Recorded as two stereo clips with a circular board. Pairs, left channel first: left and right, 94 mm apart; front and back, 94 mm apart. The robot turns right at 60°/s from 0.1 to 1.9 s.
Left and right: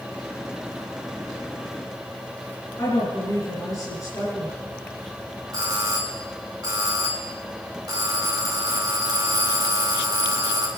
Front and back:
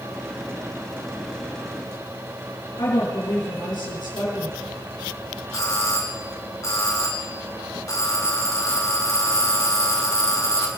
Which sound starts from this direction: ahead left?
A woman speaking, at 2.8 s.